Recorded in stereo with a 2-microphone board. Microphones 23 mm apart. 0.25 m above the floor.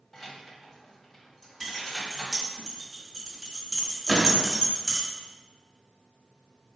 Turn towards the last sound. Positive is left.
turn(degrees=0)  # may be behind; listen again after turning